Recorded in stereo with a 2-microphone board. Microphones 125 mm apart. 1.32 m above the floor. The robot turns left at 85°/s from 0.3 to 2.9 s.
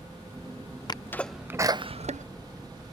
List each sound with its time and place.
0.9 s a sneeze: 35° left (ahead or behind); by 2.2 s 75° right (ahead or behind)